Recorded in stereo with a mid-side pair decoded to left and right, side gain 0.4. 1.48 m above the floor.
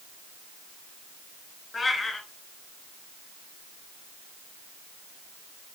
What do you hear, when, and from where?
1.7 s a cat meowing: 30° left, 4 m